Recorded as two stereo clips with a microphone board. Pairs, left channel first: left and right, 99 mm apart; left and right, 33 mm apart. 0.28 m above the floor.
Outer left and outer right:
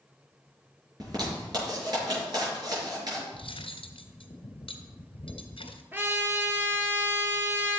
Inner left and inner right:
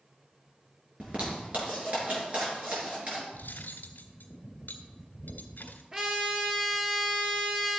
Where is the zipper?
45° right (ahead or behind), 5 m.